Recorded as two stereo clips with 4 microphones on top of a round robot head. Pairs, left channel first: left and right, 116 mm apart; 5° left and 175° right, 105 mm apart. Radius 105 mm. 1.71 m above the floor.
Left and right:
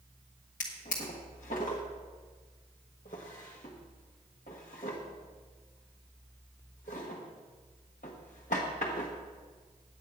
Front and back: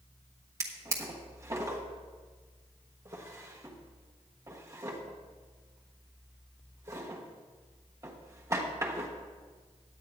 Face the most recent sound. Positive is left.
turn(degrees=130)